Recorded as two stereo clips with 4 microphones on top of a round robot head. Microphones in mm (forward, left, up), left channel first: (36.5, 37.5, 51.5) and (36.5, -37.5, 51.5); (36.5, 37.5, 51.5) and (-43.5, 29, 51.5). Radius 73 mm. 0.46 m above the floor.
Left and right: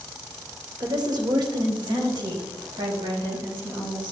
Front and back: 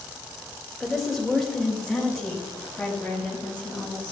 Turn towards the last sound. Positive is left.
turn(degrees=-75)